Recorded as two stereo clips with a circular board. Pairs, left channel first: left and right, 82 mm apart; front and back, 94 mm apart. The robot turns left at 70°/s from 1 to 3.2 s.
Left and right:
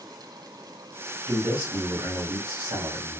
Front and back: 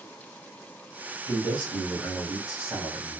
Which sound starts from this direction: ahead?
A man speaking, at 1.3 s.